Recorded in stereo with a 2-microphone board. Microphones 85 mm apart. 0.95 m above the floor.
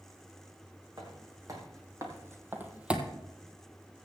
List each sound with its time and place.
1.0 s footsteps: 45° right (ahead or behind), 3 m; by 3.1 s 5° right (ahead or behind), 1.3 m